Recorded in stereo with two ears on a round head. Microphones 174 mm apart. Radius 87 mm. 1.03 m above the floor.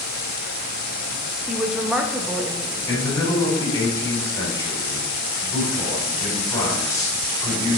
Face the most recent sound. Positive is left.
turn(degrees=20)  # may be behind; listen again after turning